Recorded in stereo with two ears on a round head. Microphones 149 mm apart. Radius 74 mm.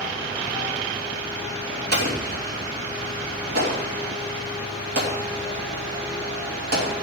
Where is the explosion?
60° right (ahead or behind), 3.5 m.